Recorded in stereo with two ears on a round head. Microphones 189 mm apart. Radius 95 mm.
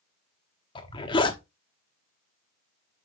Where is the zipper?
25° left (ahead or behind), 1.0 m.